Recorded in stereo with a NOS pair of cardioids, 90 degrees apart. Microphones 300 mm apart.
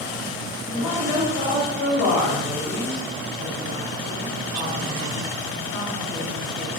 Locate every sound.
0.7 s a woman speaking: 65° left, 1.5 m